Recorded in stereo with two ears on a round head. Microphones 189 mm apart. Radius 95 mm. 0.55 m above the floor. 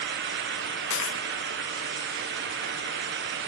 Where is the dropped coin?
70° left (ahead or behind).